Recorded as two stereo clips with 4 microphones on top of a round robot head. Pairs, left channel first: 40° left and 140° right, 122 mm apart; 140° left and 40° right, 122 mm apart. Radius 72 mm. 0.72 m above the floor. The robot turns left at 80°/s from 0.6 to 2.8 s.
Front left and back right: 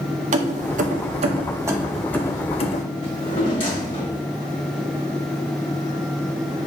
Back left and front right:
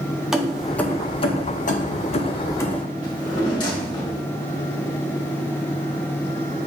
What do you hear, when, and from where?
0.3 s keys jangling: 125° right, 0.6 m; by 2.8 s 60° left, 0.6 m
3.0 s a drawer: 85° left, 1.3 m